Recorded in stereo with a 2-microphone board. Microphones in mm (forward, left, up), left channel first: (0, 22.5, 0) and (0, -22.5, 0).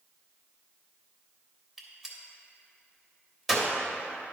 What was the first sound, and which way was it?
A gunshot, 5° right (ahead or behind).